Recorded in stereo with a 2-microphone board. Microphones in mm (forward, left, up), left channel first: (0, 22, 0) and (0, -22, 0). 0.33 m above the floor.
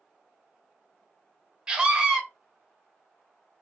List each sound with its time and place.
1.7 s a scream: 20° right (ahead or behind), 0.9 m